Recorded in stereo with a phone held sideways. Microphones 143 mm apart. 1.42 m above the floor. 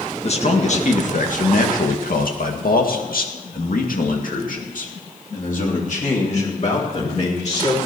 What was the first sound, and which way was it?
A man speaking, 45° left (ahead or behind).